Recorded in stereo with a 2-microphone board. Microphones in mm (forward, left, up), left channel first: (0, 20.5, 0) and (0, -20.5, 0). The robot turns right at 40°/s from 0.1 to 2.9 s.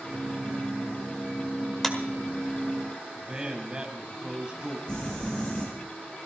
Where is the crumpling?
25° left (ahead or behind), 8.5 m.